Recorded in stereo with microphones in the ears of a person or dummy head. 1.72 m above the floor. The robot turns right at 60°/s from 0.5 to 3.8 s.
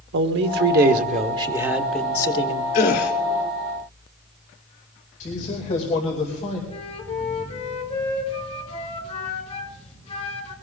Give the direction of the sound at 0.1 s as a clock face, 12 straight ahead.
3 o'clock.